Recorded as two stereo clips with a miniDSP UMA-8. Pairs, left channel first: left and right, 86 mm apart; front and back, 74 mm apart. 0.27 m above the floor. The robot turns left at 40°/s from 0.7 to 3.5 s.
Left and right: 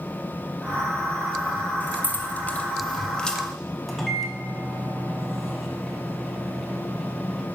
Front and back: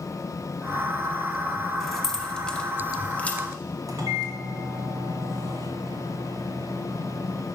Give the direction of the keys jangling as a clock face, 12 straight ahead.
9 o'clock.